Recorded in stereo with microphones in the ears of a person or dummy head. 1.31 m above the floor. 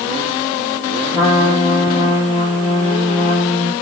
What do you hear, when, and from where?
1.1 s a trumpet: 30° left (ahead or behind), 1.6 m